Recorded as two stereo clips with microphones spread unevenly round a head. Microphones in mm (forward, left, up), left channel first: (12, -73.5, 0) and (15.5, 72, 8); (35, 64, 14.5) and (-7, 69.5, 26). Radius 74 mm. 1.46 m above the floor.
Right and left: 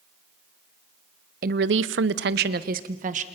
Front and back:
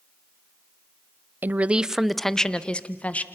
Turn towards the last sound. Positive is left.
turn(degrees=50)